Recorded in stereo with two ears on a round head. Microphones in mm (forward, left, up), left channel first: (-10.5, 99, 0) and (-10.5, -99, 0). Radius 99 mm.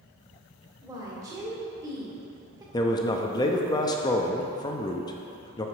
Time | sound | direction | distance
0.8 | a woman speaking | 15° right (ahead or behind) | 1.6 m
2.7 | a man speaking | 20° left (ahead or behind) | 0.5 m